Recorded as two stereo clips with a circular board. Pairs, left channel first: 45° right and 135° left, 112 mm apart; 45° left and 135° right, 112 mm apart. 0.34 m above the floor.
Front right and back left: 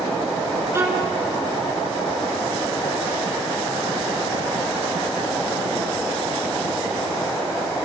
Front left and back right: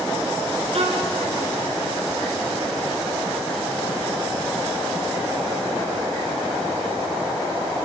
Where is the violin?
160° right, 4 m.